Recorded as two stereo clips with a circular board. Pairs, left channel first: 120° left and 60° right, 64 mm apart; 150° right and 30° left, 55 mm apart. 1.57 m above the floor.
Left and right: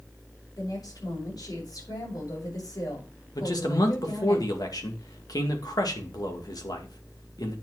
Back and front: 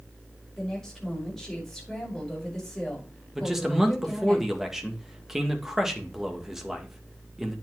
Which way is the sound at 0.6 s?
125° left.